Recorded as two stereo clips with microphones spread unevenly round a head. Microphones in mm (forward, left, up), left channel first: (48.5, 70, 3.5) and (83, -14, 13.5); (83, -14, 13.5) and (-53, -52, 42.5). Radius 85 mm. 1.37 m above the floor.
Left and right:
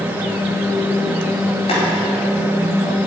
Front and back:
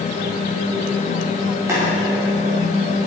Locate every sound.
1.7 s boiling: 120° left, 4.5 m